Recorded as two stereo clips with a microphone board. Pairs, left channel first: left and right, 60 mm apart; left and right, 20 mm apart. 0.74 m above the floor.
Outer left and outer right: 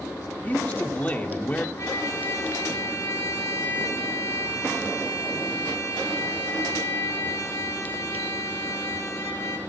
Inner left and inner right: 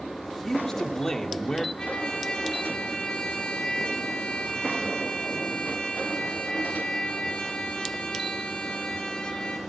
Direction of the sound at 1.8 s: 45° left (ahead or behind).